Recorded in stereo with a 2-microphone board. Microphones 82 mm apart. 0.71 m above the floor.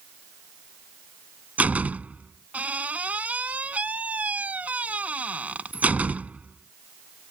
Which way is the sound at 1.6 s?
15° right (ahead or behind).